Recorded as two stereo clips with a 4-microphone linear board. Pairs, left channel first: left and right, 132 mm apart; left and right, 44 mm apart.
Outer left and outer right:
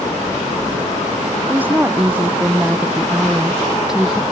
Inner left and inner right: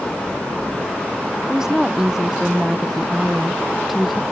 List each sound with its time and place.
1.5 s a woman speaking: 15° right (ahead or behind); by 4.2 s centre (ahead or behind)